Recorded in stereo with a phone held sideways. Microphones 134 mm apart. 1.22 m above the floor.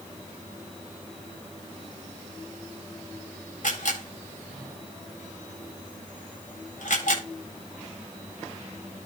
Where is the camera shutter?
75° left (ahead or behind), 8 m.